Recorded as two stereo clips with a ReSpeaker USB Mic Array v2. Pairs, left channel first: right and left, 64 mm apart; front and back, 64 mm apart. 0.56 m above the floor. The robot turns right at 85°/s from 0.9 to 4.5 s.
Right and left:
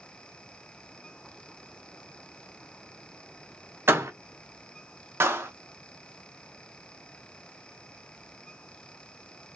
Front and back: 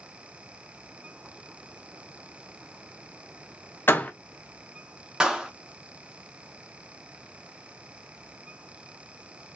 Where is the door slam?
45° left, 0.5 m; by 4.1 s 65° left, 0.5 m.